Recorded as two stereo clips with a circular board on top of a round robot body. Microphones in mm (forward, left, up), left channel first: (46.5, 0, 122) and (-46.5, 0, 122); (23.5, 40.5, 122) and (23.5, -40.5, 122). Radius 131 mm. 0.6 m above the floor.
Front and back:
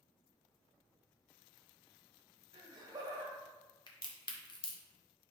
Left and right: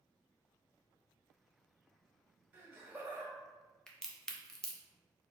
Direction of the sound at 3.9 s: 5° left.